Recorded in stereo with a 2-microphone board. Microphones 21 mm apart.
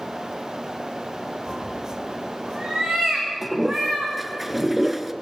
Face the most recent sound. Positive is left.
turn(degrees=-10)  # may be behind; listen again after turning